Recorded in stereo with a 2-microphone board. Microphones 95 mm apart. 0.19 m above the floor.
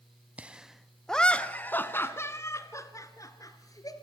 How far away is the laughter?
About 1.1 m.